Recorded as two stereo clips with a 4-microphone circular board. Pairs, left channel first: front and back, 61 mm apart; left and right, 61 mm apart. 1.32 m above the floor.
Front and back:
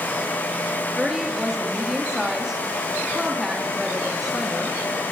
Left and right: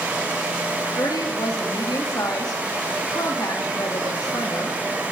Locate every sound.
1.0 s a woman speaking: 95° left, 2.5 m